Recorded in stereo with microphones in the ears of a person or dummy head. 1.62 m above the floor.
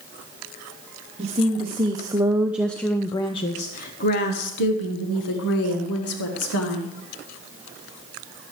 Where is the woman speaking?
35° right (ahead or behind), 1.2 m; by 7.0 s 85° left, 2 m.